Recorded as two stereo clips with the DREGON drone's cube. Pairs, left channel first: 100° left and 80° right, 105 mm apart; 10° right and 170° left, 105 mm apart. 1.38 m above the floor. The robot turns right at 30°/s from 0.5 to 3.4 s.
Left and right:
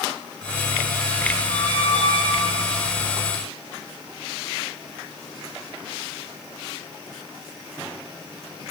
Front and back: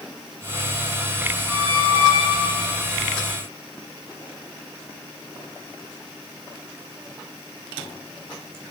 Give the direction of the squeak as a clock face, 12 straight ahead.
4 o'clock.